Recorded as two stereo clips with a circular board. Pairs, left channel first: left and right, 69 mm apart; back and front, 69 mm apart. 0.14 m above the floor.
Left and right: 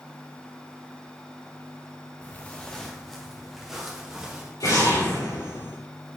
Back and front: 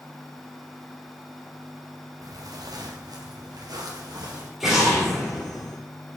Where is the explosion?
85° left, 3 m.